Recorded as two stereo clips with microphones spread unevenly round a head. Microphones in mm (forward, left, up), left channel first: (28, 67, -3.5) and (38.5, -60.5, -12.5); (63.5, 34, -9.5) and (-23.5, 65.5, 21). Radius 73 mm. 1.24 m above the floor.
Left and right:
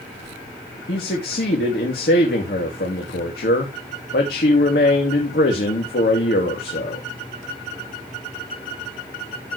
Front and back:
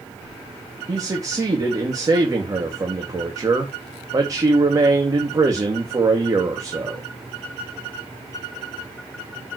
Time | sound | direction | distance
0.9 | a man speaking | 105° left | 2.5 m